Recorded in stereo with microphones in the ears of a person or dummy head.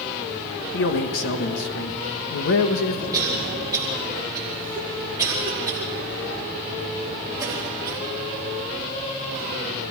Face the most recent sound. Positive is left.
turn(degrees=-15)  # may be behind; listen again after turning